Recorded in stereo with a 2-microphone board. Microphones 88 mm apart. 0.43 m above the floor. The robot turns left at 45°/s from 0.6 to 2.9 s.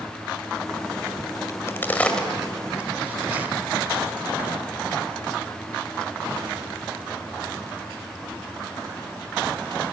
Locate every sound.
1.5 s a crack: 35° left (ahead or behind), 1.8 m; by 3.5 s 20° right (ahead or behind), 1.8 m